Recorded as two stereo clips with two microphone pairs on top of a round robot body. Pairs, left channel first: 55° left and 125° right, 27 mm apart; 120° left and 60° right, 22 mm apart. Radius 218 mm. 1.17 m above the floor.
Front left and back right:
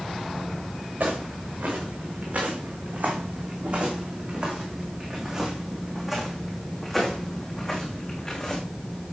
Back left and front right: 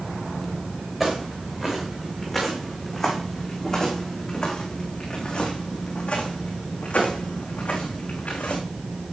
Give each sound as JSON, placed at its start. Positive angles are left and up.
{"t": 1.0, "sound": "footsteps", "azimuth_deg": -140, "distance_m": 4.5}